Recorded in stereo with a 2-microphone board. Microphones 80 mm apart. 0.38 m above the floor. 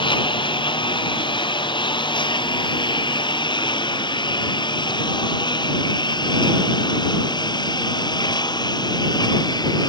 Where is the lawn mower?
75° left (ahead or behind); by 9.9 s 55° left (ahead or behind).